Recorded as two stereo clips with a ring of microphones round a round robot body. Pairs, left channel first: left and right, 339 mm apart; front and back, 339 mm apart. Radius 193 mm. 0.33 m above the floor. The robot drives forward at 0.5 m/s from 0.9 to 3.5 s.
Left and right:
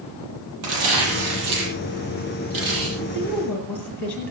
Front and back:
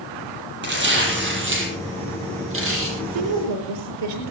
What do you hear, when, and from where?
0.6 s tearing paper: 120° right, 7.5 m; by 2.9 s 130° right, 8 m
3.0 s a woman speaking: 175° left, 7 m